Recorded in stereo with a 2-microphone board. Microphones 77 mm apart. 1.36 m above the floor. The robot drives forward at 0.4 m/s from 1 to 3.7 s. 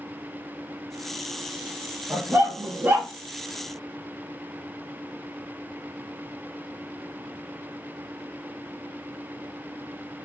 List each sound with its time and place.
2.1 s a dog barking: 30° right (ahead or behind), 0.8 m; by 3.1 s 25° right (ahead or behind), 0.9 m